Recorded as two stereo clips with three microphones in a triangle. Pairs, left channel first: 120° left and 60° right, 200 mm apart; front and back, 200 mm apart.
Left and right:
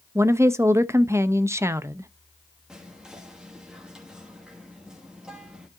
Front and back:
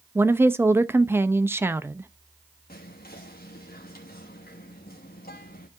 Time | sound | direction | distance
0.1 | a woman speaking | 120° right | 0.6 m
2.7 | whispering | 25° left | 1.1 m